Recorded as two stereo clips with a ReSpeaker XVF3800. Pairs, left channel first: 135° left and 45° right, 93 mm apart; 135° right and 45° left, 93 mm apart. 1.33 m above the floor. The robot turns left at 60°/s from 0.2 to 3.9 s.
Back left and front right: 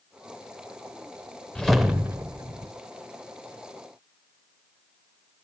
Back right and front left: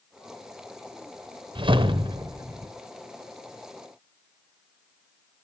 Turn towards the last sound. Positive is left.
turn(degrees=-85)